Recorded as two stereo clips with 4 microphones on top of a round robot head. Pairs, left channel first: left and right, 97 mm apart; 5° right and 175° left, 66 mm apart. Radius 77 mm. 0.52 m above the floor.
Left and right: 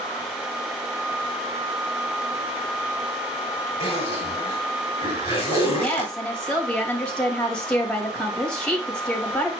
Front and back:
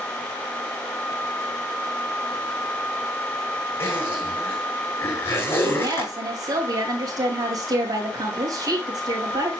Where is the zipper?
45° left, 6 m.